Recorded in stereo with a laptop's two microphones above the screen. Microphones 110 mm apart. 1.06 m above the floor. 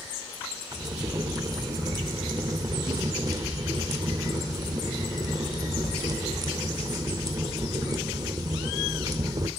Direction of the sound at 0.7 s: 35° right (ahead or behind).